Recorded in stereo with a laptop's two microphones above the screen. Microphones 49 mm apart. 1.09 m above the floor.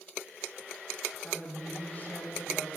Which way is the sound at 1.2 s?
30° left (ahead or behind).